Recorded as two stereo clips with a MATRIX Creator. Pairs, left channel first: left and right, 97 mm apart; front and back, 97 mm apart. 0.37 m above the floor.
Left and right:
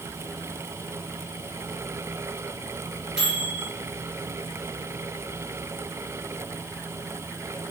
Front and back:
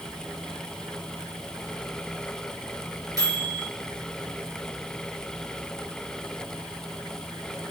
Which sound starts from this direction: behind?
A microwave, at 3.2 s.